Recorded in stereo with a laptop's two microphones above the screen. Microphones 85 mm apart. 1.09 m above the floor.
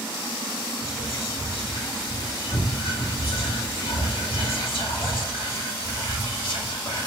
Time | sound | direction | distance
0.8 | whispering | 70° left (ahead or behind) | 2.5 m